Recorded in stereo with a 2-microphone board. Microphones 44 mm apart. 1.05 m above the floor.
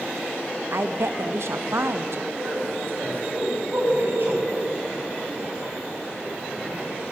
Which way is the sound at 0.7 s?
70° right (ahead or behind).